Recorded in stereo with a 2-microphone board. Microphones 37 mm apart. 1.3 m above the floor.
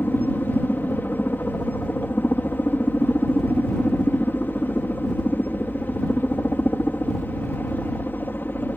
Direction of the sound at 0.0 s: 60° left (ahead or behind).